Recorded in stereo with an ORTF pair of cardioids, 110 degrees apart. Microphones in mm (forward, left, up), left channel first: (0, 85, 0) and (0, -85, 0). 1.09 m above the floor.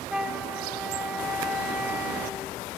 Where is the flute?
5° right, 1.0 m.